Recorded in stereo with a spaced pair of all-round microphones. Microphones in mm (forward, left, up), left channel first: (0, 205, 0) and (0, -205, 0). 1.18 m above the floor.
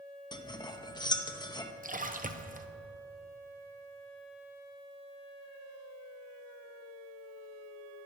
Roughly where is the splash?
Centre.